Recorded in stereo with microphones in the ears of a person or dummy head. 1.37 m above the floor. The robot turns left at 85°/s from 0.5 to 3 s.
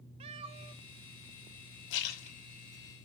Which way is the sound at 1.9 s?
65° left.